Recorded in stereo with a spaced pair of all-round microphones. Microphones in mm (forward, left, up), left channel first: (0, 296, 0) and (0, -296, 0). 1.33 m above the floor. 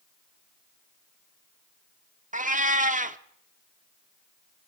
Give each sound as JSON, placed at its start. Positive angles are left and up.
{"t": 2.3, "sound": "a cat meowing", "side_deg": -15, "distance_m": 0.9}